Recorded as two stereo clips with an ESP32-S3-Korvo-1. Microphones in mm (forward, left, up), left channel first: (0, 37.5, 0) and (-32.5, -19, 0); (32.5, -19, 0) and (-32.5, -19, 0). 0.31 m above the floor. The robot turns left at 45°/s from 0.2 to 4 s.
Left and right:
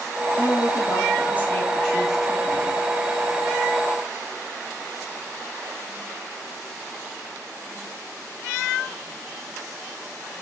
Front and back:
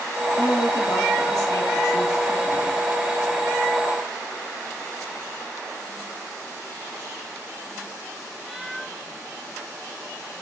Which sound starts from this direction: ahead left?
A woman speaking, at 0.4 s.